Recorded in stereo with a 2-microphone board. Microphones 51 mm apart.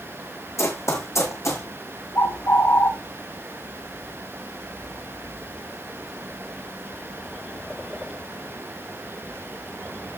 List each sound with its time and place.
0.6 s running footsteps: 70° left (ahead or behind), 2.5 m
2.1 s a bird: 70° left (ahead or behind), 6 m